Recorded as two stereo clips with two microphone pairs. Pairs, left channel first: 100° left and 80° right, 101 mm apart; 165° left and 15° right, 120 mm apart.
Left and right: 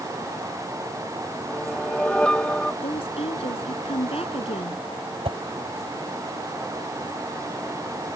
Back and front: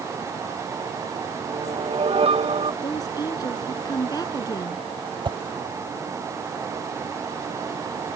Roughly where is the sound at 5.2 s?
Ahead right.